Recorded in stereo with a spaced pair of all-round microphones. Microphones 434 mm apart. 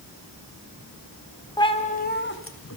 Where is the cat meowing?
10° left (ahead or behind), 1.5 m; by 2.8 s 35° left (ahead or behind), 2 m.